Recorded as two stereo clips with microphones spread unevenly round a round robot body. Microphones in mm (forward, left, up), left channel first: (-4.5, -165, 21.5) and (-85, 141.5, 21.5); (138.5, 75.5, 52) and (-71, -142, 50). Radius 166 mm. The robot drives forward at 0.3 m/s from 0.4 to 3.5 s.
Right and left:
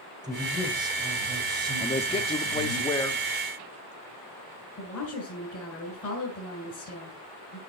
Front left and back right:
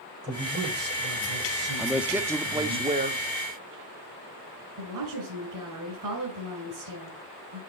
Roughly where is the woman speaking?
Behind right.